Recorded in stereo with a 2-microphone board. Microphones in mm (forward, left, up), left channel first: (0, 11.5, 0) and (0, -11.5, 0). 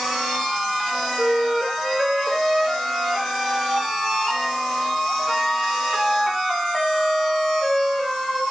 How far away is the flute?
About 3 m.